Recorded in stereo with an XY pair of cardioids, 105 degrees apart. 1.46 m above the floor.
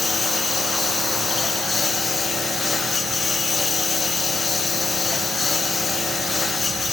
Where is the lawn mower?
30° left.